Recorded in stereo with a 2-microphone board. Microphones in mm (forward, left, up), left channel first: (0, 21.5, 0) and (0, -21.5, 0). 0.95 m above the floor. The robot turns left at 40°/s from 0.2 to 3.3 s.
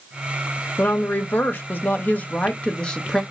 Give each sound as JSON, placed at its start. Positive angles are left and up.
{"t": 0.8, "sound": "a woman speaking", "azimuth_deg": 110, "distance_m": 0.9}